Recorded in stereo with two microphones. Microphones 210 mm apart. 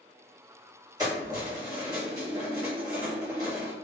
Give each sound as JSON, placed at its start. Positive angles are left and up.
{"t": 1.0, "sound": "keys jangling", "side_deg": -20, "distance_m": 1.6}